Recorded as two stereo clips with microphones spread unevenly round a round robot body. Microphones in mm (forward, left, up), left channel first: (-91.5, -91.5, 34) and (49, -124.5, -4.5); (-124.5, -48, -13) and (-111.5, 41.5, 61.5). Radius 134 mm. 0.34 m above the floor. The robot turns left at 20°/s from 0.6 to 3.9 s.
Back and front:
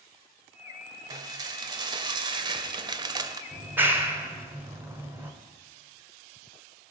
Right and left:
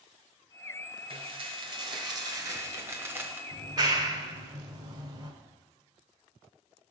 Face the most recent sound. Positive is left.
turn(degrees=-20)